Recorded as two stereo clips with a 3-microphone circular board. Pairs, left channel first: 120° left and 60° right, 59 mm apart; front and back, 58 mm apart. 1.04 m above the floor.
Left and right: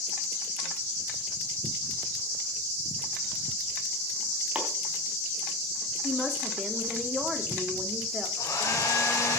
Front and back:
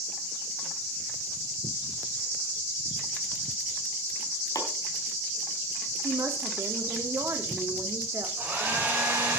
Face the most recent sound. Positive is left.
turn(degrees=120)